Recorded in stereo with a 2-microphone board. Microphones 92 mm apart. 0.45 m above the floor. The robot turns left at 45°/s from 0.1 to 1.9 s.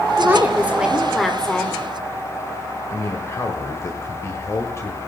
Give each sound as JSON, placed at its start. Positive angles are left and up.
{"t": 0.2, "sound": "a woman speaking", "azimuth_deg": -135, "distance_m": 1.6}
{"t": 2.9, "sound": "a man speaking", "side_deg": 30, "distance_m": 1.7}